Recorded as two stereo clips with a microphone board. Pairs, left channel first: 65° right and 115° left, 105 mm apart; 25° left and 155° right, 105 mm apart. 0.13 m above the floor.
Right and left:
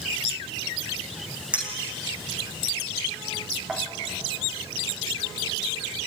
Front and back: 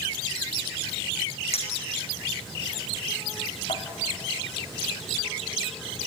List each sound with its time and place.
1.5 s a clink: 35° left, 4 m